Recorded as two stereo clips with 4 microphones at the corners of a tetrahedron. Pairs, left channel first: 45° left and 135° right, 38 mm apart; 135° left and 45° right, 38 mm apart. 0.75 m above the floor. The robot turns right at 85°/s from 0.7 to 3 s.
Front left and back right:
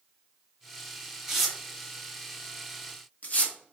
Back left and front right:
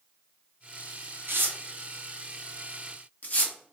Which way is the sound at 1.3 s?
55° right.